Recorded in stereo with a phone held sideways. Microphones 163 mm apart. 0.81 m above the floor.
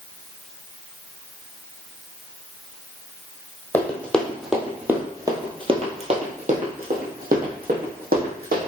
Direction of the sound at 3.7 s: 15° left (ahead or behind).